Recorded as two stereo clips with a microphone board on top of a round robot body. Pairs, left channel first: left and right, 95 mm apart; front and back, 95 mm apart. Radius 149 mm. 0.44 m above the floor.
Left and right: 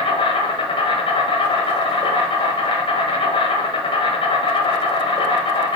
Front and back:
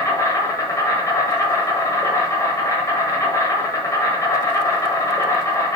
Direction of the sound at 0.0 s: 60° left.